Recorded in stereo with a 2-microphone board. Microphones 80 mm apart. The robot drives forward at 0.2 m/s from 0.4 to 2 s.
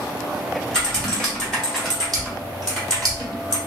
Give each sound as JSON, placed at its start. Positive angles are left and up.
{"t": 0.7, "sound": "typing on a keyboard", "side_deg": 10, "distance_m": 1.3}